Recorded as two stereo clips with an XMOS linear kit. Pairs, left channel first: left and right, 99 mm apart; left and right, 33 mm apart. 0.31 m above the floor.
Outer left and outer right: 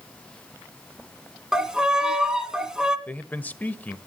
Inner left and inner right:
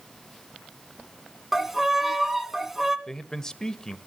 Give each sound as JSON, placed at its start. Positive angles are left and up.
{"t": 1.5, "sound": "a violin", "side_deg": -10, "distance_m": 1.6}
{"t": 3.1, "sound": "a man speaking", "side_deg": 15, "distance_m": 1.1}